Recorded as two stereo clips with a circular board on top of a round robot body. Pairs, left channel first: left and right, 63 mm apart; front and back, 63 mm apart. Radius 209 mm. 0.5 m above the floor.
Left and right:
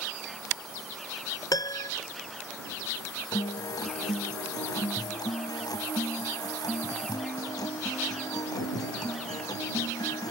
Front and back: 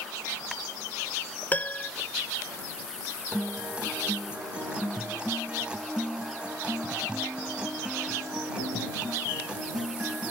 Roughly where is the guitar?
Left.